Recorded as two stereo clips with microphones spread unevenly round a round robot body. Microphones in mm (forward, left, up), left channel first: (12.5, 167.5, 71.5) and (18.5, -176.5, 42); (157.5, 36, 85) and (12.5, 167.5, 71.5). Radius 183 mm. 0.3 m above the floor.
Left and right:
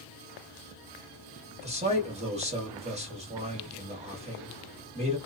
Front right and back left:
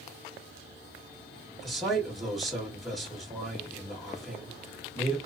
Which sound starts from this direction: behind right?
A man speaking, at 1.6 s.